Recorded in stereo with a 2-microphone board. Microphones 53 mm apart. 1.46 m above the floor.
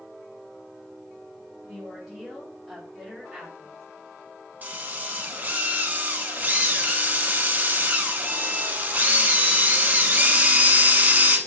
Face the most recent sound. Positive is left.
turn(degrees=-30)  # may be behind; listen again after turning